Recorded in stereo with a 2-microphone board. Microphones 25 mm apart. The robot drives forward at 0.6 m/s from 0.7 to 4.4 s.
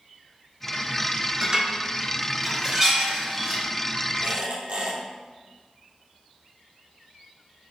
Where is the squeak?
75° right (ahead or behind), 3.5 m; by 5.0 s 70° right (ahead or behind), 3.5 m.